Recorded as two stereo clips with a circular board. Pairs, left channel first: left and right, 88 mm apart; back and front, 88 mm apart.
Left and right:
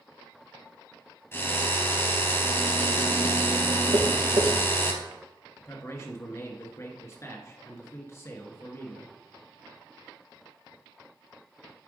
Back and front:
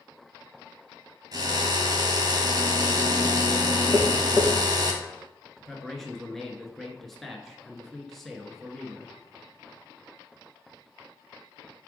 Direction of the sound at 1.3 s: 35° left.